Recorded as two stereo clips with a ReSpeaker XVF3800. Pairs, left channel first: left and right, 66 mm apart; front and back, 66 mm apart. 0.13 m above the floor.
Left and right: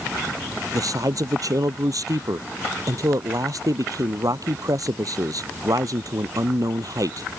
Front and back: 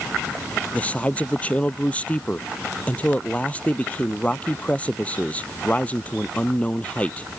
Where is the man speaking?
70° right.